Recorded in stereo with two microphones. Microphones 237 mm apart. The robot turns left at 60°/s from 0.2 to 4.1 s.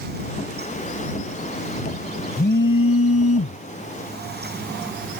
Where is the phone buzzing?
40° left (ahead or behind); by 5.2 s 35° left (ahead or behind).